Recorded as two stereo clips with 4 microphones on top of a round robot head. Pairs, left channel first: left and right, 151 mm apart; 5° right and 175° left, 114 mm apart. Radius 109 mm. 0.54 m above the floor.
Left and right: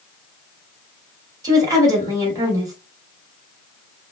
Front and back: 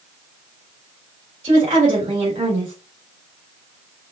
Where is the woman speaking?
155° right, 2.5 m.